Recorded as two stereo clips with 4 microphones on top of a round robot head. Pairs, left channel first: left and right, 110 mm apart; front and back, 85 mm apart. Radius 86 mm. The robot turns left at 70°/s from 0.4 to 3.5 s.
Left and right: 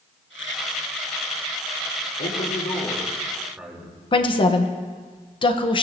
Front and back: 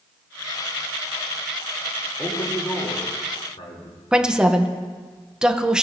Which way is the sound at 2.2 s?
80° left.